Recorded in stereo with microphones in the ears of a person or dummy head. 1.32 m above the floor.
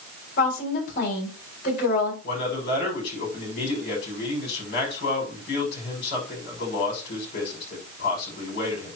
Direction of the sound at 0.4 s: 50° left (ahead or behind).